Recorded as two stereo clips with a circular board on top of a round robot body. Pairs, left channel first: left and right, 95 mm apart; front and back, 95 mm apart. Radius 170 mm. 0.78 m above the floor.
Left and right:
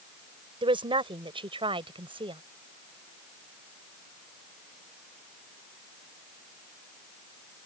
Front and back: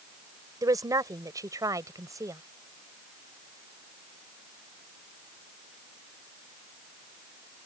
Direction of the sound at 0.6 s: 125° right.